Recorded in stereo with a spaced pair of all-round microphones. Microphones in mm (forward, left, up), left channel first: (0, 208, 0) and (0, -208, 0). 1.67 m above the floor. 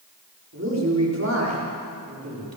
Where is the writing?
No writing in this recording.